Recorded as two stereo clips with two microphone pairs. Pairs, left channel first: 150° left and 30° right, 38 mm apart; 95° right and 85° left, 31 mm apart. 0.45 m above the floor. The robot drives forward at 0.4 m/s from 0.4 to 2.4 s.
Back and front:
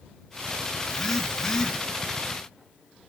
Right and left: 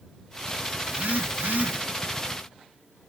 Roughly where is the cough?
No cough in this recording.